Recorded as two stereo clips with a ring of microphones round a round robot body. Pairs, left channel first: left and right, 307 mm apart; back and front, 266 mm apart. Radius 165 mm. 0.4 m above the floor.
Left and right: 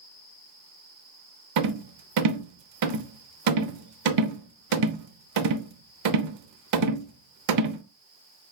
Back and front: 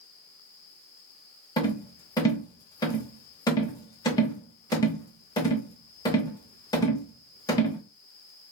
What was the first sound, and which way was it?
A rattle, 105° right.